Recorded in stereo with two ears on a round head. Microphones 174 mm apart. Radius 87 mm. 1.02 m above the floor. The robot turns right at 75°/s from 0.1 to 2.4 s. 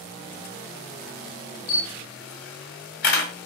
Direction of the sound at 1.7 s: 50° left (ahead or behind).